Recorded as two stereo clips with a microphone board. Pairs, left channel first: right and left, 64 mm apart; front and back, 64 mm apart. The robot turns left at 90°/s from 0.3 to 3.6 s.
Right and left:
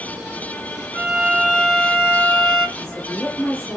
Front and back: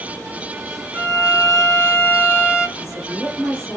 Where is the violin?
55° left, 1.6 m; by 2.7 s 100° right, 1.6 m.